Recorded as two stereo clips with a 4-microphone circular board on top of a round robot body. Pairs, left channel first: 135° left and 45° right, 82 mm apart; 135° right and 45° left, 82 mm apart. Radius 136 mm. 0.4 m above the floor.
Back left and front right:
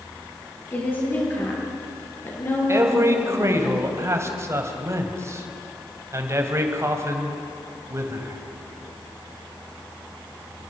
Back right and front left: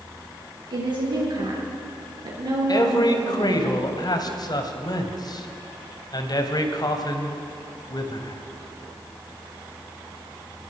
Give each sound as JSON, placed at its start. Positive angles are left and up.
{"t": 0.7, "sound": "a woman speaking", "azimuth_deg": 70, "distance_m": 8.5}
{"t": 2.7, "sound": "a man speaking", "azimuth_deg": -100, "distance_m": 2.5}